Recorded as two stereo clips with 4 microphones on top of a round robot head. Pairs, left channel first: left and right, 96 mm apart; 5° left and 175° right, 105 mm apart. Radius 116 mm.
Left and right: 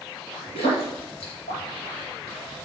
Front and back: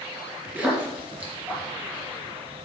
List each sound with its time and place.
0.6 s a splash: 110° left, 3 m